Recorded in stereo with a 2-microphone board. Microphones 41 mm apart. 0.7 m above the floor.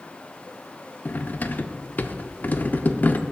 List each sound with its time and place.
1.1 s cutlery clinking: 45° left (ahead or behind), 0.6 m